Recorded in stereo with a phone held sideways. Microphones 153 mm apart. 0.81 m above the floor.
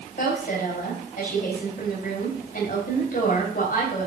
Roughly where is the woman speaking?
Left.